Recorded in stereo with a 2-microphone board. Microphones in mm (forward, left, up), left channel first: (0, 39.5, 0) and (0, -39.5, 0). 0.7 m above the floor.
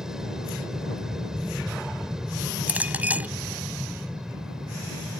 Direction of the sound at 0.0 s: 5° right (ahead or behind).